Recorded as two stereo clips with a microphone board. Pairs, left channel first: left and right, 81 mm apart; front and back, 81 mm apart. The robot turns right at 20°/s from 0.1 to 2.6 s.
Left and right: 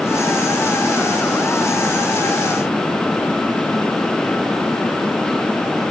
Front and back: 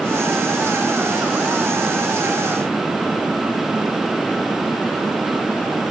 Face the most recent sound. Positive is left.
No sound to turn to.